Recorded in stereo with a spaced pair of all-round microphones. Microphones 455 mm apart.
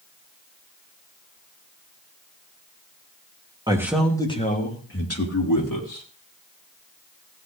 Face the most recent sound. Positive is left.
turn(degrees=45)  # may be behind; listen again after turning